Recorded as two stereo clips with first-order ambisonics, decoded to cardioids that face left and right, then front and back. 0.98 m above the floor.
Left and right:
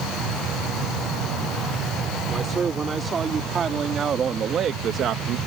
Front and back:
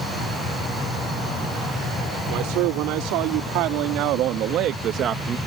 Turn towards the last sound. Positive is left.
turn(degrees=-120)